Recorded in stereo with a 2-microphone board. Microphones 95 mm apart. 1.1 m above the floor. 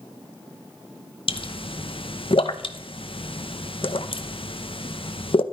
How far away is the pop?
About 0.9 m.